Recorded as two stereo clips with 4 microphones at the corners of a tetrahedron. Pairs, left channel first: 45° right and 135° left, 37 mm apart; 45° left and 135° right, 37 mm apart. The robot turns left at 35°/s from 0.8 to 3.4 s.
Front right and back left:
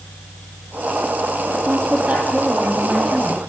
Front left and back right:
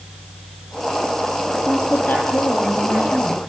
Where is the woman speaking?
95° left, 5.5 m; by 3.4 s 35° left, 5.5 m.